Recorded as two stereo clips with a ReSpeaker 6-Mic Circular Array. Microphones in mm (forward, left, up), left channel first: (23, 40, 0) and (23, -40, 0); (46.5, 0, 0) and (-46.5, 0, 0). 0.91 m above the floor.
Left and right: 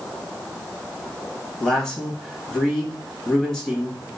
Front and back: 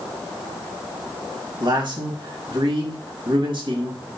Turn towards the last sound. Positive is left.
turn(degrees=170)